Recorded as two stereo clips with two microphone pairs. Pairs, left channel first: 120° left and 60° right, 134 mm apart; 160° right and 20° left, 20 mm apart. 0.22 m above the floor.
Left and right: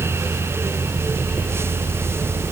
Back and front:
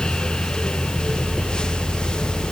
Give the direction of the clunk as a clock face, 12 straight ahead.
No clunk in this recording.